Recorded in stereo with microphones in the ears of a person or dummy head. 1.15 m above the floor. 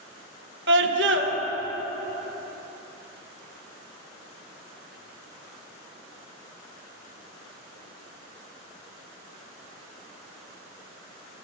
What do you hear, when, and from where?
0.7 s a scream: 55° right (ahead or behind), 1.2 m